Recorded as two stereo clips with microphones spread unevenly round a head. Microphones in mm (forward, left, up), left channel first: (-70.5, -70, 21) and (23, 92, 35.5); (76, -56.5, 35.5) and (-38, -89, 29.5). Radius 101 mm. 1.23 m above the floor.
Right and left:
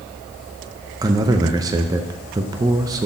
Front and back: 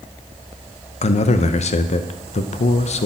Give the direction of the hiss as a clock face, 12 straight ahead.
I don't hear a hiss.